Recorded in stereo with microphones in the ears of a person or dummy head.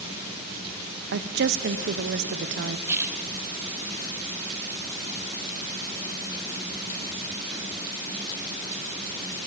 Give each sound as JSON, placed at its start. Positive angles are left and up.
{"t": 1.1, "sound": "a woman speaking", "side_deg": -60, "distance_m": 0.7}
{"t": 2.9, "sound": "a splash", "side_deg": -10, "distance_m": 1.7}